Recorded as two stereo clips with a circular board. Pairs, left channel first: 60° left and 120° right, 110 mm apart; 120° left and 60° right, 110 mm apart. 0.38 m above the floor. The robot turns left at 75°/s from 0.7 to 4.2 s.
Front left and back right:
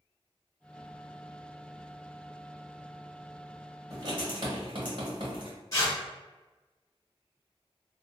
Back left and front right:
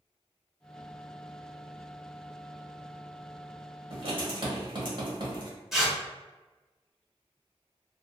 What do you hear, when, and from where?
3.9 s writing: 70° right, 1.1 m; by 5.5 s 90° right, 1.1 m
5.7 s tearing paper: 25° left, 1.1 m